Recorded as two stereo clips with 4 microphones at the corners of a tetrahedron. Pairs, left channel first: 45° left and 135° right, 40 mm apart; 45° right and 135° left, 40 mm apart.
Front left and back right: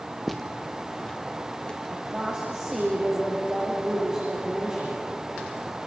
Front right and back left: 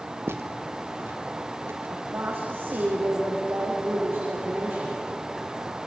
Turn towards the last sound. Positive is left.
turn(degrees=165)